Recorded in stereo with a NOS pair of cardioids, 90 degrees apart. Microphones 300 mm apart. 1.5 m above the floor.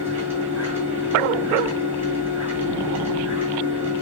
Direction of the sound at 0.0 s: 5° right.